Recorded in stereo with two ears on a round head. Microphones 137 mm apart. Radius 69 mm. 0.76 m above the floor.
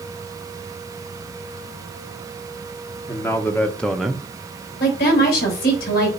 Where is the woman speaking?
75° left (ahead or behind), 4.5 m.